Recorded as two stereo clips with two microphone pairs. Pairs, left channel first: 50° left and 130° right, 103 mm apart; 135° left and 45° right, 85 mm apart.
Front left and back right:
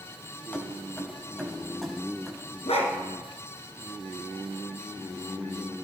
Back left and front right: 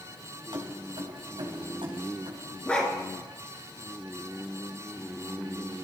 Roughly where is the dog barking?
Ahead left.